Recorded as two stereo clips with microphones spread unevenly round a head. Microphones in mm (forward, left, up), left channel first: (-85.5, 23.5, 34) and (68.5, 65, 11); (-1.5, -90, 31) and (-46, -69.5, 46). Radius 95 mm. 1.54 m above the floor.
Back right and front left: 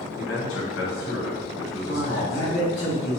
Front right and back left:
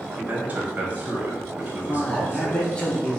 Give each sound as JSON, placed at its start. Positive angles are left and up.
{"t": 0.2, "sound": "a man speaking", "azimuth_deg": -150, "distance_m": 1.5}
{"t": 1.8, "sound": "a man speaking", "azimuth_deg": -100, "distance_m": 1.2}